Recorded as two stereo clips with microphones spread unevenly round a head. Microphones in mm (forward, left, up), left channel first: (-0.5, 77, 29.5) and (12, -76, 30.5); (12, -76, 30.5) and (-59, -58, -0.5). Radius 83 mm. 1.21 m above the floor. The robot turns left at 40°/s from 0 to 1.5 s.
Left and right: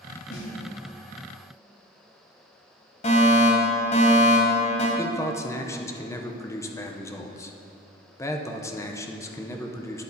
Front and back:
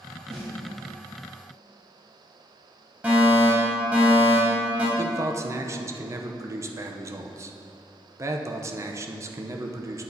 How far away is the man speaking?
About 0.6 m.